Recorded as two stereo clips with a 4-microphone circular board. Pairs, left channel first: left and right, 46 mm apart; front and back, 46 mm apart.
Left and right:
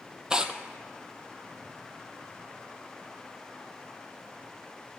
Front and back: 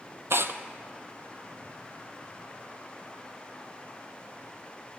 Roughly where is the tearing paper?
Behind.